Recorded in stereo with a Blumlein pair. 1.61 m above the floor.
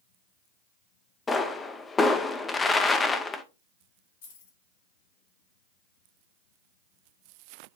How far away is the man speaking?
No man speaking in this recording.